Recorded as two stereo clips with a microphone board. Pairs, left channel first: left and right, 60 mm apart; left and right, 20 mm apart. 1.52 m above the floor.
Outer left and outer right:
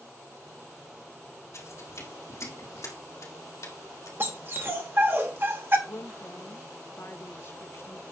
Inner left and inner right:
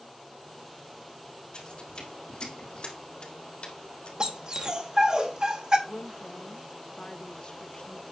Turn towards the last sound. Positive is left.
turn(degrees=45)  # may be behind; listen again after turning